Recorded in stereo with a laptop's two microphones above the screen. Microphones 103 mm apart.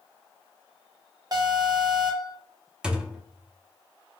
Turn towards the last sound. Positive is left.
turn(degrees=-10)  # may be behind; listen again after turning